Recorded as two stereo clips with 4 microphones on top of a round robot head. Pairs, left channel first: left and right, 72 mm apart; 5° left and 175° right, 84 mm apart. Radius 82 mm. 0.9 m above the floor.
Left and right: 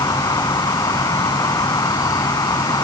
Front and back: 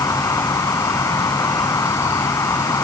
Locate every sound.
0.0 s an insect: 55° left